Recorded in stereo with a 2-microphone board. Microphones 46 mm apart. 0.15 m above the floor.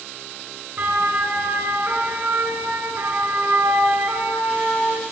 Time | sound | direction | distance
0.8 | a siren | 45° right (ahead or behind) | 3 m